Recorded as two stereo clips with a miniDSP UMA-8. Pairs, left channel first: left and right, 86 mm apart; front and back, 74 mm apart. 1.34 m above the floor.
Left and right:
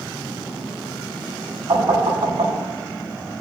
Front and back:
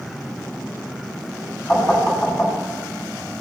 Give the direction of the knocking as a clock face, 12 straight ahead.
2 o'clock.